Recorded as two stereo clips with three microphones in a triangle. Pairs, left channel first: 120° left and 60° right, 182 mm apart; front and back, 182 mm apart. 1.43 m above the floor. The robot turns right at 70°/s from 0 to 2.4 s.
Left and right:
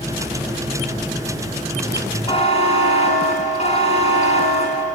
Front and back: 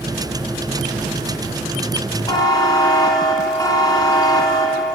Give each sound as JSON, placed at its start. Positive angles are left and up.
{"t": 2.3, "sound": "a buzzer", "azimuth_deg": 60, "distance_m": 3.5}